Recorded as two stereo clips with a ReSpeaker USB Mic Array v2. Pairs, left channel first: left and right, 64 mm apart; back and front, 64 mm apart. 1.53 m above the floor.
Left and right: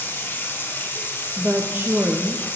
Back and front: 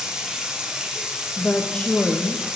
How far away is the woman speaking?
About 0.5 m.